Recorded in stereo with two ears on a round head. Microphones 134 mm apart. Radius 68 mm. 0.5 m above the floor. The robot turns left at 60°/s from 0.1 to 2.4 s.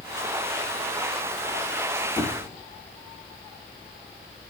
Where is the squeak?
10° left (ahead or behind), 0.6 m; by 2.6 s 20° left (ahead or behind), 0.6 m.